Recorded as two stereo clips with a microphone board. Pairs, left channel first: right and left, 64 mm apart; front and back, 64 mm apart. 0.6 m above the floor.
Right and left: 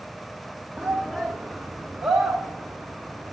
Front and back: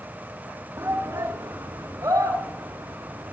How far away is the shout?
About 1.4 m.